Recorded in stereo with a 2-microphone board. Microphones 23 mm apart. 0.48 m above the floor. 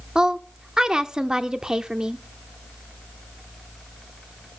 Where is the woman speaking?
30° right (ahead or behind), 0.7 m.